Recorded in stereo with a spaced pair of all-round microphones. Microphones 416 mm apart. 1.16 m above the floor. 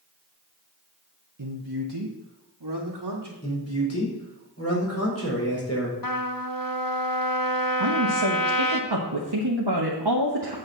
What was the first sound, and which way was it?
A man speaking, 55° right (ahead or behind).